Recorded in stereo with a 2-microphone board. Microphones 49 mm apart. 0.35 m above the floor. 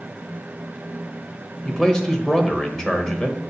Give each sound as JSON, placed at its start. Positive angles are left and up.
{"t": 1.6, "sound": "a man speaking", "side_deg": 15, "distance_m": 1.1}